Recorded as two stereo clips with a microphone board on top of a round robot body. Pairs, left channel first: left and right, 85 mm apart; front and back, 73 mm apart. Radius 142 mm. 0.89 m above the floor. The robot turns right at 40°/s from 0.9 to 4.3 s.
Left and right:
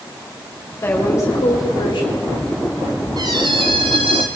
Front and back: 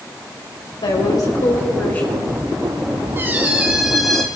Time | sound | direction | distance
0.8 | a woman speaking | 25° left | 4.5 m
3.2 | a squeak | 125° right | 0.6 m